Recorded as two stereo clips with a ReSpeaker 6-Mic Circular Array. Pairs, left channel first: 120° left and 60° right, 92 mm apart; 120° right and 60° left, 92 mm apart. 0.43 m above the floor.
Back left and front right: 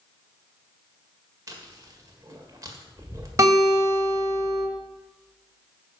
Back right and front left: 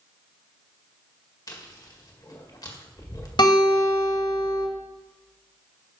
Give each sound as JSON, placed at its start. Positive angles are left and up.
{"t": 1.5, "sound": "chewing", "azimuth_deg": -95, "distance_m": 1.7}
{"t": 3.4, "sound": "a guitar", "azimuth_deg": -110, "distance_m": 2.5}